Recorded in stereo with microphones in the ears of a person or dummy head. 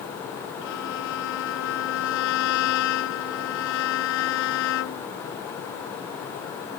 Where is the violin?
70° left (ahead or behind).